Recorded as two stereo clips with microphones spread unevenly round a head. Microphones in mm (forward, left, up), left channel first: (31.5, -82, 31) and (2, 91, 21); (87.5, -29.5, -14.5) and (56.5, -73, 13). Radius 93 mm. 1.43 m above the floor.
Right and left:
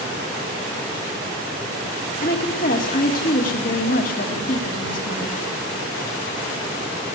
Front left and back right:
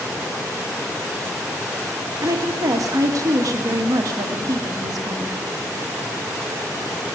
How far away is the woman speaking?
About 2.0 m.